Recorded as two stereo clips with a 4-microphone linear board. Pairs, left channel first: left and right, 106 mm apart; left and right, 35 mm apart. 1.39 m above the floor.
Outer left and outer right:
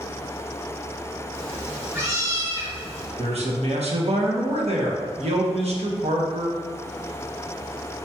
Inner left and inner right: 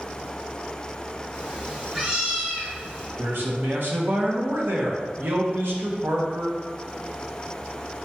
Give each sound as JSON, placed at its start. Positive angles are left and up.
{"t": 1.3, "sound": "a cat meowing", "side_deg": -25, "distance_m": 1.4}
{"t": 3.2, "sound": "a man speaking", "side_deg": -70, "distance_m": 1.0}